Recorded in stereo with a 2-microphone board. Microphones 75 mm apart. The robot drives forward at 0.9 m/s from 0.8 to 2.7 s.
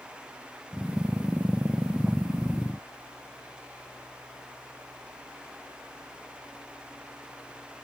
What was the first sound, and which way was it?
Only background noise.